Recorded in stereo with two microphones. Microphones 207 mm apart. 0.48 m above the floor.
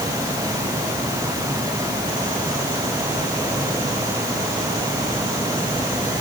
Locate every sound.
Only background noise.